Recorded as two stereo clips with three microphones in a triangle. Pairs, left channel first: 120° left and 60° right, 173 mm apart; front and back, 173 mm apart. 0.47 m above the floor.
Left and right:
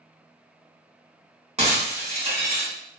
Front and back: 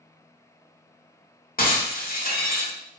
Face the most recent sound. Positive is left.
turn(degrees=-15)